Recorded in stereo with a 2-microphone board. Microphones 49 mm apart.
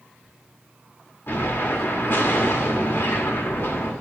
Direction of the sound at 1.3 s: 50° left (ahead or behind).